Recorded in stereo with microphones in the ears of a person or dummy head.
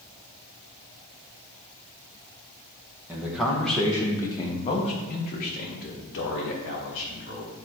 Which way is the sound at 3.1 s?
5° right (ahead or behind).